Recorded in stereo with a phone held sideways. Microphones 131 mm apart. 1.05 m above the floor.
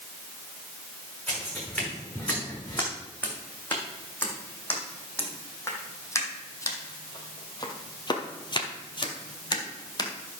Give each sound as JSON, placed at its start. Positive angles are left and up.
{"t": 1.3, "sound": "footsteps", "side_deg": 10, "distance_m": 4.5}